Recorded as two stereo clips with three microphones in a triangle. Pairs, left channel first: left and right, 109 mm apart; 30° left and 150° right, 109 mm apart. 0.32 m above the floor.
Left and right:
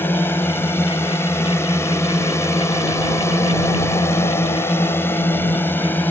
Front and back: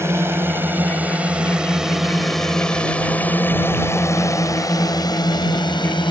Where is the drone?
155° left; by 6.1 s 25° left.